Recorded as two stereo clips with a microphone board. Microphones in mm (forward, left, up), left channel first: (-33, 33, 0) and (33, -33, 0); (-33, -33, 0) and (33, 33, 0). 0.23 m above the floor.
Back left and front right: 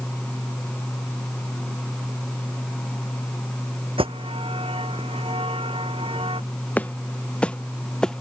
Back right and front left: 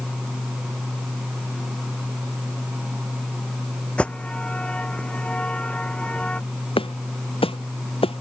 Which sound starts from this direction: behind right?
Footsteps, at 6.8 s.